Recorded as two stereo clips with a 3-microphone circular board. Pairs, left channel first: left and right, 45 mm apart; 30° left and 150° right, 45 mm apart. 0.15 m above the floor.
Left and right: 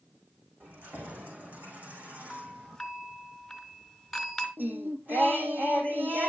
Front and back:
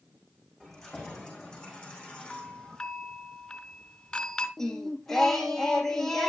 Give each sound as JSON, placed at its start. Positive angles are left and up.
{"t": 0.6, "sound": "keys jangling", "azimuth_deg": -55, "distance_m": 6.0}
{"t": 2.3, "sound": "a doorbell", "azimuth_deg": 15, "distance_m": 2.0}
{"t": 4.6, "sound": "singing", "azimuth_deg": -50, "distance_m": 1.8}